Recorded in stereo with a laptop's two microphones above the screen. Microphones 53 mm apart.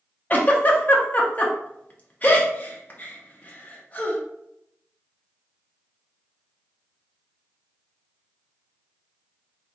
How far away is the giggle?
About 0.6 m.